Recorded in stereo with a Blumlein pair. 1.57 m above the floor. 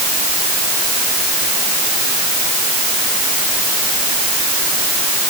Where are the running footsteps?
I don't hear running footsteps.